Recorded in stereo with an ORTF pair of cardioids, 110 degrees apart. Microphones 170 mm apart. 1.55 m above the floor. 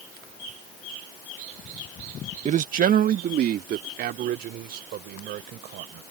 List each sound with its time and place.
2.5 s a man speaking: 45° right; by 6.0 s 70° right